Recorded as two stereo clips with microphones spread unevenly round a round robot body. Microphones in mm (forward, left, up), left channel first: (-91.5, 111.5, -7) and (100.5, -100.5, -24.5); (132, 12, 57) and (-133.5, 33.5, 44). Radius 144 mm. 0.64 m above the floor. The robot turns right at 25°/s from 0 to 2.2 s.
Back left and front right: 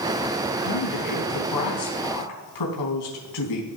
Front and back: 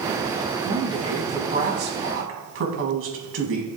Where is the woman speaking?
95° left, 4.5 m; by 3.7 s 135° left, 4.5 m.